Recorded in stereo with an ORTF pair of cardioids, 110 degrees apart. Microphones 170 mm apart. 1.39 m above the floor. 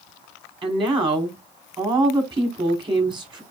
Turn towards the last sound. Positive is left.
turn(degrees=-25)